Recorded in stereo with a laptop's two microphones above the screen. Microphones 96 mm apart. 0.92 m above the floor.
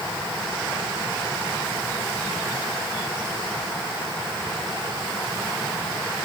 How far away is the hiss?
I don't hear a hiss.